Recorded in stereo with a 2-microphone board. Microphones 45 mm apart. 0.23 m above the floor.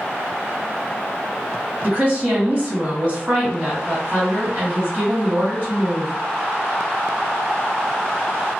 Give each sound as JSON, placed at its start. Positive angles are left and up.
{"t": 1.8, "sound": "a woman speaking", "side_deg": -35, "distance_m": 1.8}